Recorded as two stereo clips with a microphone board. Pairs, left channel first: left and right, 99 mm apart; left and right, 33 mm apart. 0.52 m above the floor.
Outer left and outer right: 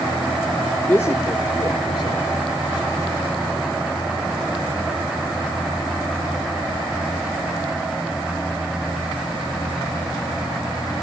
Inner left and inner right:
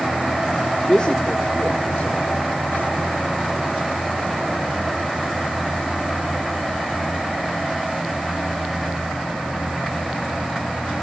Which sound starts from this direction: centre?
A man speaking, at 0.9 s.